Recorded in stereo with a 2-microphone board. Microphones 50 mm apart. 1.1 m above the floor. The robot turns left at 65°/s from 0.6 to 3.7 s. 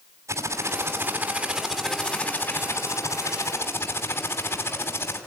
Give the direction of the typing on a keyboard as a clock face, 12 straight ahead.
3 o'clock.